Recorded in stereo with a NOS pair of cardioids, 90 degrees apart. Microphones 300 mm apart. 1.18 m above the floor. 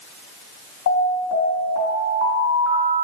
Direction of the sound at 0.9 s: 70° left.